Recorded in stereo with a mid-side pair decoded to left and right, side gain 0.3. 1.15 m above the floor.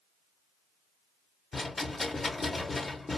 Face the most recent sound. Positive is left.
turn(degrees=40)